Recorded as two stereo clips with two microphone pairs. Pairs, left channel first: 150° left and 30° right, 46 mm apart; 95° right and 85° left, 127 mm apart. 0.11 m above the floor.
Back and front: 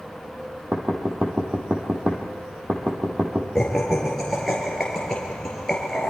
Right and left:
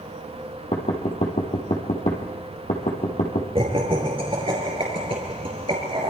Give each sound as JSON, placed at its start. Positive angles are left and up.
{"t": 0.7, "sound": "knocking", "azimuth_deg": -85, "distance_m": 4.0}
{"t": 3.5, "sound": "laughter", "azimuth_deg": 70, "distance_m": 2.5}